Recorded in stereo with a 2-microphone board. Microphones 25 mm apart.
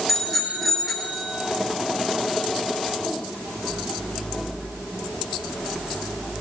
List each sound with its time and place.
0.1 s a bicycle bell: 5° right (ahead or behind), 6.5 m